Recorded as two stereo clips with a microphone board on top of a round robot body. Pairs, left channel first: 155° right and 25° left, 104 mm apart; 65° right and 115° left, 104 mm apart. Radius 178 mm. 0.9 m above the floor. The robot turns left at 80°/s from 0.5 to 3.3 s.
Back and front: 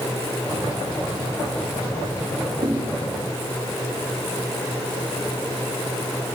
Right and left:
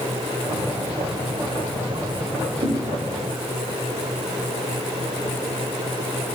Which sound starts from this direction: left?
A thud, at 2.6 s.